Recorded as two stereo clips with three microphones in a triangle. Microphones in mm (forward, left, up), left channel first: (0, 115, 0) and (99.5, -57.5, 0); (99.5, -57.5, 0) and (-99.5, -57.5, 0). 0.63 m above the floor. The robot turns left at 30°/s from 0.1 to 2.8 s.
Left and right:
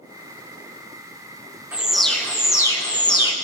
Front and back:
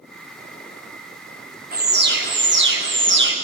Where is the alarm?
140° right, 0.8 m; by 3.3 s 175° right, 0.8 m.